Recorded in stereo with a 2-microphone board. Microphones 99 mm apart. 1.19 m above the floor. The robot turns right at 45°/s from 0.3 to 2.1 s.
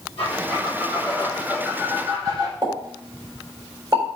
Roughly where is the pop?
Right.